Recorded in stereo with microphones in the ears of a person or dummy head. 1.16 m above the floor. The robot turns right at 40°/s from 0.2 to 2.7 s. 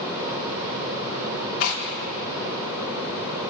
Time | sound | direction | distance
1.6 | tearing paper | 75° left (ahead or behind) | 3.5 m